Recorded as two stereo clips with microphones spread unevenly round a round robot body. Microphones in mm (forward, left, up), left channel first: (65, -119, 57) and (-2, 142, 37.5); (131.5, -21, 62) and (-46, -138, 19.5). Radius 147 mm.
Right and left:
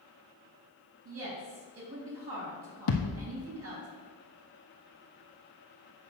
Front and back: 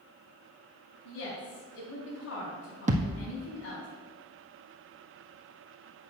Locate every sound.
1.1 s a woman speaking: 80° left, 3 m
2.9 s a thud: 85° right, 1.3 m